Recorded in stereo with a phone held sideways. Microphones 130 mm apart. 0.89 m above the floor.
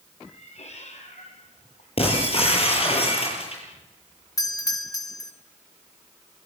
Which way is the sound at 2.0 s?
50° left (ahead or behind).